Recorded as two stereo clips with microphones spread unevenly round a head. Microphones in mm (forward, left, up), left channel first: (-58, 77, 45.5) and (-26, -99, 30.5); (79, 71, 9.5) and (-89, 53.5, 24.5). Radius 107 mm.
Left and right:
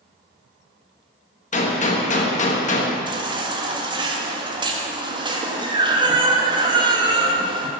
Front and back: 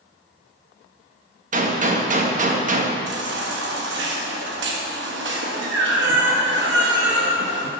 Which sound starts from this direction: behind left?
A gunshot, at 1.5 s.